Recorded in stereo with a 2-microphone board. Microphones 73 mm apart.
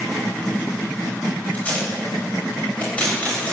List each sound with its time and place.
1.5 s tape being pulled: 20° left (ahead or behind), 9 m